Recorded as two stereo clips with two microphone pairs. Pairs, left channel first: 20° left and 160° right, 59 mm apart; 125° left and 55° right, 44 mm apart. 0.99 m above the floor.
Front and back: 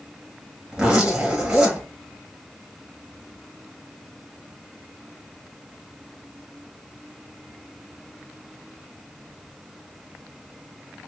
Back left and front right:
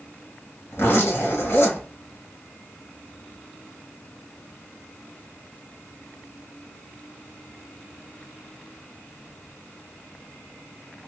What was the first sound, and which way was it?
A zipper, 120° left.